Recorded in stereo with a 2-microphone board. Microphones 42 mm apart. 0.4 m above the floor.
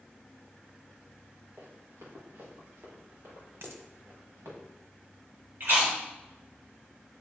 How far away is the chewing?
About 2.5 m.